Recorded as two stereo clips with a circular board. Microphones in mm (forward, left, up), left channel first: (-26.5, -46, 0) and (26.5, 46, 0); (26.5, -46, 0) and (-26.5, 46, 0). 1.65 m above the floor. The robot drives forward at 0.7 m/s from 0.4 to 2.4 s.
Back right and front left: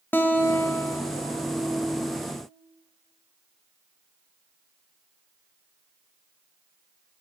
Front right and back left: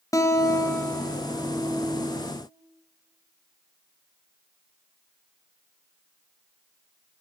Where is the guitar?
70° right, 0.9 m; by 2.2 s 155° right, 1.4 m.